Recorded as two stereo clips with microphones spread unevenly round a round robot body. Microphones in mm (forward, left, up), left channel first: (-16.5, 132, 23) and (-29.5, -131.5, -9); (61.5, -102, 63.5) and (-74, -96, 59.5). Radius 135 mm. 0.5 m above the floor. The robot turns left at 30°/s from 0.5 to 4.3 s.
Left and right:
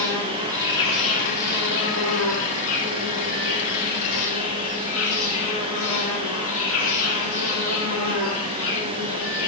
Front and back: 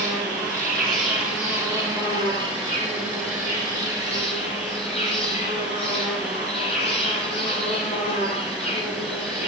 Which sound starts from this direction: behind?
An insect, at 0.0 s.